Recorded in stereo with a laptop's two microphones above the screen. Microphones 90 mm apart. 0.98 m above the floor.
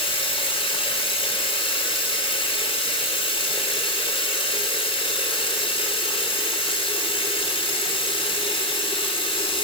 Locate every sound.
0.0 s running water: 85° left, 2.5 m